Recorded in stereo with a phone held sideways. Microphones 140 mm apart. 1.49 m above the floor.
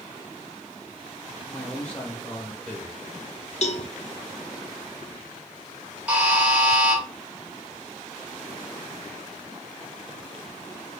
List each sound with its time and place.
1.5 s a man speaking: 10° left (ahead or behind), 1.4 m
3.6 s a cowbell: 55° left (ahead or behind), 0.5 m
6.1 s a buzzer: 10° right (ahead or behind), 1.3 m